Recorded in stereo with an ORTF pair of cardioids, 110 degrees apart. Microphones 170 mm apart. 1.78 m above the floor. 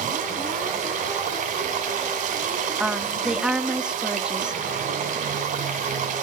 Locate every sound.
0.0 s running water: 55° right, 4 m
2.8 s a woman speaking: 5° right, 1.7 m